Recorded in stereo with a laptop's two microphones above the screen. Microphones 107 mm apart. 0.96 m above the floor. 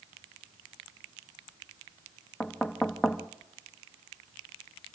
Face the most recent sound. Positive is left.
turn(degrees=5)  # may be behind; listen again after turning